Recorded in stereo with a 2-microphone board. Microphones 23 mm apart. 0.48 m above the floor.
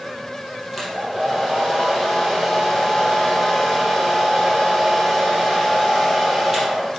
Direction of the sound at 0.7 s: 10° right (ahead or behind).